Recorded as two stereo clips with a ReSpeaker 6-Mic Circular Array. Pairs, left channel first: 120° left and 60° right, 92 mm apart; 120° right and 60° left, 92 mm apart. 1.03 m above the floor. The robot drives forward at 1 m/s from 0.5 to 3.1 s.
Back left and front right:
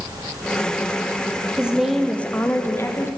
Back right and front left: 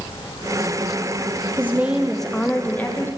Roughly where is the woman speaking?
Ahead.